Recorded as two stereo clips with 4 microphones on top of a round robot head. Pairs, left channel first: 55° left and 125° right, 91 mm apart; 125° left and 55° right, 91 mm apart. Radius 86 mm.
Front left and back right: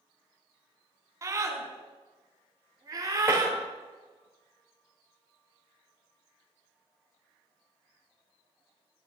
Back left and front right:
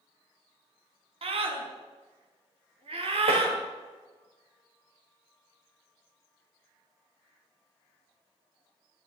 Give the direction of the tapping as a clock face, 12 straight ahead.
2 o'clock.